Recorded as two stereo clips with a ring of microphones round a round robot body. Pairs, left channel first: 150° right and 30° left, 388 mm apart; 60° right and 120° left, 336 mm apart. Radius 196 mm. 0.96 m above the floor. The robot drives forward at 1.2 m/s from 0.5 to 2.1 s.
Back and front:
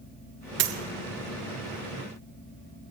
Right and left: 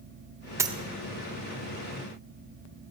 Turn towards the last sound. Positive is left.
turn(degrees=170)